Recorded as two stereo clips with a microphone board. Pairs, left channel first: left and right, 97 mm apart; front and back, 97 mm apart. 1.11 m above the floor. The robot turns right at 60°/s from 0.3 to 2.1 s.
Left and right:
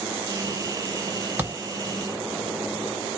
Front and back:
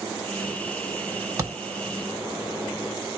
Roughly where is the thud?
Behind right.